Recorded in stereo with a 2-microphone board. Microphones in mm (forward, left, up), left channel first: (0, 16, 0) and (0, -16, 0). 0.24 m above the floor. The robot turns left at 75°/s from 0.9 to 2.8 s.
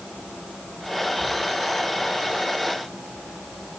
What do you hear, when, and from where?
1.2 s a thud: 25° right (ahead or behind), 7 m; by 1.3 s 35° right (ahead or behind), 7 m